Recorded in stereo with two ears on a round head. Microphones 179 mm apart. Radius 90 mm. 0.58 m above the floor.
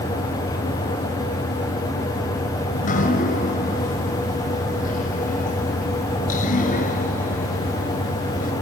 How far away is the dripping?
About 5 m.